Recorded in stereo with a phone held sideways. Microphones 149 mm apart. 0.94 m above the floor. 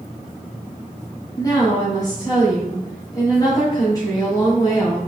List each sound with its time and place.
1.4 s a woman speaking: 25° left (ahead or behind), 4 m